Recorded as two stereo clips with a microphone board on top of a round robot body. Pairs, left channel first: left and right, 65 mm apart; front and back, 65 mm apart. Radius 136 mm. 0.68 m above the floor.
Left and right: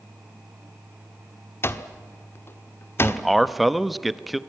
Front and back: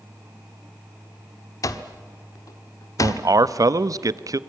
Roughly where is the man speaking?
Behind.